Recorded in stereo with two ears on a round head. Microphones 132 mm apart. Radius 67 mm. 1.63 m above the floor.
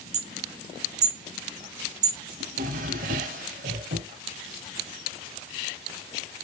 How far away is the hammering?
About 1.6 m.